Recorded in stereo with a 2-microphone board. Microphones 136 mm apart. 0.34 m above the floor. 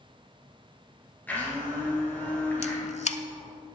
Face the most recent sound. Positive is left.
turn(degrees=55)  # may be behind; listen again after turning